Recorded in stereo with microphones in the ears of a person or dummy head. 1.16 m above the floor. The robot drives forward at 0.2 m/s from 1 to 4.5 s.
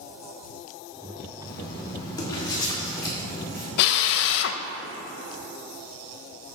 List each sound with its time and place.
1.4 s writing: 20° left (ahead or behind), 1.9 m; by 3.7 s 15° left (ahead or behind), 2.5 m
3.8 s a drill: 60° left (ahead or behind), 0.5 m